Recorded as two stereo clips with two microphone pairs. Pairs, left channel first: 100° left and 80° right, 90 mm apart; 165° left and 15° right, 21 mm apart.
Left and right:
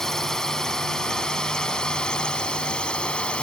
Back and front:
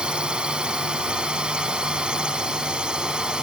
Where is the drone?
20° left; by 3.4 s 25° left.